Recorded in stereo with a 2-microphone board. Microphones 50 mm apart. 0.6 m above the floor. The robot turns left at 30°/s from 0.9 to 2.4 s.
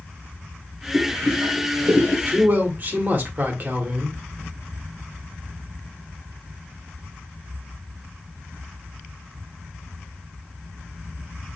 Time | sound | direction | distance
0.9 | boiling | 55° right (ahead or behind) | 1.1 m
2.3 | a man speaking | 45° right (ahead or behind) | 1.2 m